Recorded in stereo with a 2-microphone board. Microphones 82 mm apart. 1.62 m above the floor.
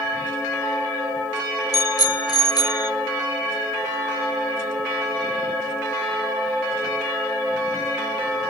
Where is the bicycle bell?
50° left (ahead or behind); by 2.9 s 60° left (ahead or behind).